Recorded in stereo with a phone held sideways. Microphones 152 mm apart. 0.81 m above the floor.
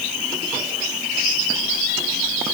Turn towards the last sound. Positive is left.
No sound to turn to.